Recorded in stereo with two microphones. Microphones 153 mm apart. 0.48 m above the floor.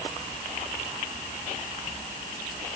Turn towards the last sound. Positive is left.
No sound to turn to.